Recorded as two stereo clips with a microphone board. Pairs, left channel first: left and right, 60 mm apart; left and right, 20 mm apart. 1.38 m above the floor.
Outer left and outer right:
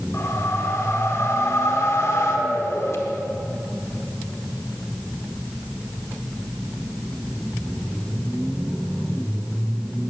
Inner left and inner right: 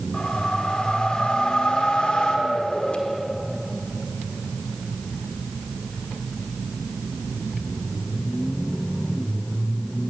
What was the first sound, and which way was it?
A whoosh, 55° left (ahead or behind).